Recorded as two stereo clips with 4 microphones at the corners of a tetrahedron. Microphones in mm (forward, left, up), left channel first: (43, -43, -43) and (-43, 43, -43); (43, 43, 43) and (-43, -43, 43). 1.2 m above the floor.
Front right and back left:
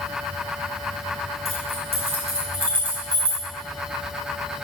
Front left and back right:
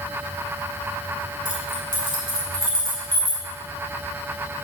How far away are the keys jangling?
About 4.5 m.